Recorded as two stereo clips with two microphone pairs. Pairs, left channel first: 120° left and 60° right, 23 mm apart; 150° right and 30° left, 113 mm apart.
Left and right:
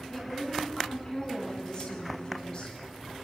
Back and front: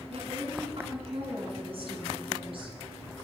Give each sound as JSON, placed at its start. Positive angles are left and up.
{"t": 0.1, "sound": "a woman speaking", "azimuth_deg": 55, "distance_m": 8.0}